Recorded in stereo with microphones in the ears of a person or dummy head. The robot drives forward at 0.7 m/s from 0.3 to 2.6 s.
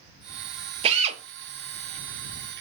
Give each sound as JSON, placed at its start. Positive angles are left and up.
{"t": 0.8, "sound": "a drill", "side_deg": -35, "distance_m": 0.8}